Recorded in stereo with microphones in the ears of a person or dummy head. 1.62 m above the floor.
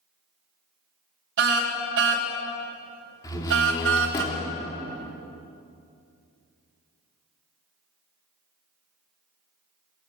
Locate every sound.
1.4 s a car horn: 70° right (ahead or behind), 4 m; by 4.2 s 75° right (ahead or behind), 3 m
3.2 s a door slam: 20° left (ahead or behind), 3.5 m